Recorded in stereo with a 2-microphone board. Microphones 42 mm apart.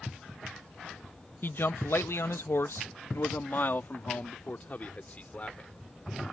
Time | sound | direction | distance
1.4 | a man speaking | 55° left (ahead or behind) | ?